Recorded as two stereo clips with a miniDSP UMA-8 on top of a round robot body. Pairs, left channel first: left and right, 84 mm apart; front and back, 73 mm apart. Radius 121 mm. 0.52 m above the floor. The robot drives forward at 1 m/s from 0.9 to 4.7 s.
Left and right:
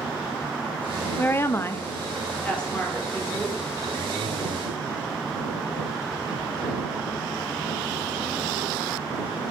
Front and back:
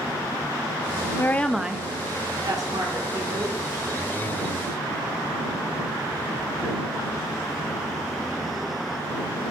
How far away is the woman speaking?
About 0.7 m.